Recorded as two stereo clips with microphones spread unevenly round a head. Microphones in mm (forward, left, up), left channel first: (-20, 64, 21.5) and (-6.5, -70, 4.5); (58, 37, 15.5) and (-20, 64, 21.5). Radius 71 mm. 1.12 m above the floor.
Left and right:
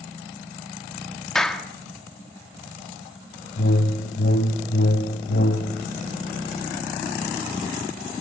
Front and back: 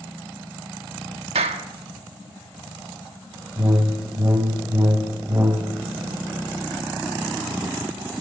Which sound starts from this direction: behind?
A clap, at 1.4 s.